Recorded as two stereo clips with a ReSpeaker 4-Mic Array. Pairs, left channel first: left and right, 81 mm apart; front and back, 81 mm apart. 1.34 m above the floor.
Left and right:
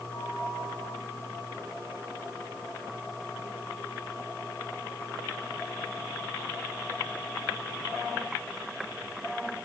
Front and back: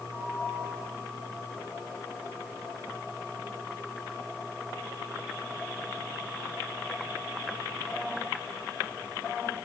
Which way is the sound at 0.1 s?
110° left.